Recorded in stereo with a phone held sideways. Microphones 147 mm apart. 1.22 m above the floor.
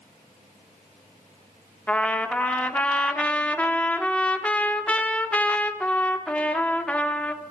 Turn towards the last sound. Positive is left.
turn(degrees=10)  # may be behind; listen again after turning